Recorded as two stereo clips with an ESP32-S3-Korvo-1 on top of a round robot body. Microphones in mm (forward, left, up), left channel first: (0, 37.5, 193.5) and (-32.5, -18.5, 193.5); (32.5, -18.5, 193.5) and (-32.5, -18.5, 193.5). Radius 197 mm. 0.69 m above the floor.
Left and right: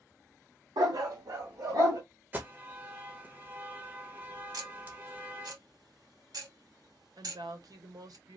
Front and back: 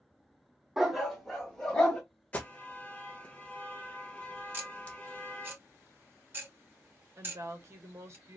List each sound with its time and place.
0.8 s a dog barking: 95° right, 1.1 m; by 2.0 s 85° right, 2.5 m
2.3 s an alarm: 65° right, 1.6 m
4.5 s ticking: 125° right, 2.5 m
7.2 s a woman speaking: 135° right, 1.4 m